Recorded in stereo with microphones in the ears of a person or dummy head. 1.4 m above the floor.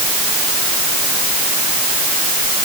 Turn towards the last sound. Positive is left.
No sound to turn to.